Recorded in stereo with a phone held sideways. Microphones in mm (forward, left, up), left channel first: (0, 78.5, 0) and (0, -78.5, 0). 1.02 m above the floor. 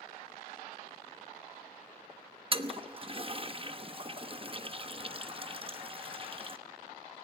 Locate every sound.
2.5 s a toilet flushing: 35° right (ahead or behind), 1.0 m